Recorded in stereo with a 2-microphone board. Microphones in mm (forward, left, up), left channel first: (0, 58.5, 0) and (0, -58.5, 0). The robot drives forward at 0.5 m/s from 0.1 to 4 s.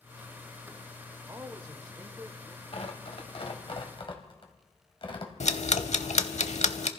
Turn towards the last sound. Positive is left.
turn(degrees=75)  # may be behind; listen again after turning